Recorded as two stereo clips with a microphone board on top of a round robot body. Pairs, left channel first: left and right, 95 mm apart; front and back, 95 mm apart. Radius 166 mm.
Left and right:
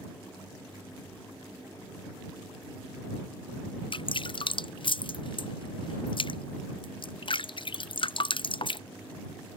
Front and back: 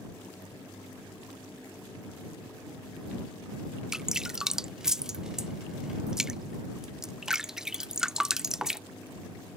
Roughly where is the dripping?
Left.